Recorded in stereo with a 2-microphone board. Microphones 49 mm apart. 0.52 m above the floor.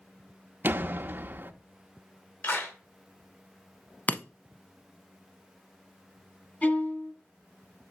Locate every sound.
0.6 s a door slam: 40° right (ahead or behind), 0.6 m
2.4 s a clap: 50° left (ahead or behind), 2.5 m
4.1 s breaking glass: 35° left (ahead or behind), 0.6 m
6.6 s a violin: 35° left (ahead or behind), 2.5 m